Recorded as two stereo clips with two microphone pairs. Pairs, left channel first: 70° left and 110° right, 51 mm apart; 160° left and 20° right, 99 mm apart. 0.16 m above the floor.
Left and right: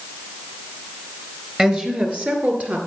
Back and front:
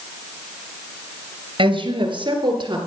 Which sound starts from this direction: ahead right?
A woman speaking, at 1.6 s.